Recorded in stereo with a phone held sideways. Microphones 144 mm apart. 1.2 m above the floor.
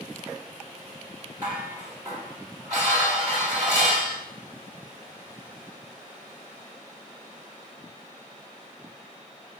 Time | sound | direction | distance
1.4 | dishes clattering | 25° right (ahead or behind) | 2.5 m